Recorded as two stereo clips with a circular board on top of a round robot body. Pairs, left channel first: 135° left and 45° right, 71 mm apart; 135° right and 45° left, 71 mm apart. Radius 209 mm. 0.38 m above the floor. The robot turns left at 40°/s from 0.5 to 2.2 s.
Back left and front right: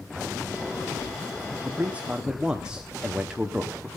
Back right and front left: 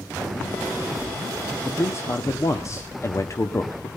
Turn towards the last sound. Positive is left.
turn(degrees=-120)